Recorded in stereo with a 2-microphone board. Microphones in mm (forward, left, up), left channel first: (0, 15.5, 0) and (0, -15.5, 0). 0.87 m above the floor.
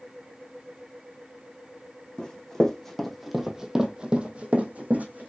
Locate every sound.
2.2 s running footsteps: 20° left (ahead or behind), 1.7 m; by 5.3 s 60° right (ahead or behind), 1.7 m